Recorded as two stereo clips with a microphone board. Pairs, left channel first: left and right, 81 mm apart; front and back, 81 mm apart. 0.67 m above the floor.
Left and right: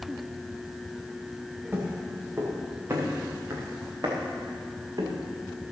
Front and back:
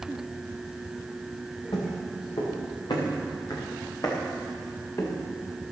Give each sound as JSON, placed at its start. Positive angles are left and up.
{"t": 1.7, "sound": "footsteps", "azimuth_deg": -25, "distance_m": 4.5}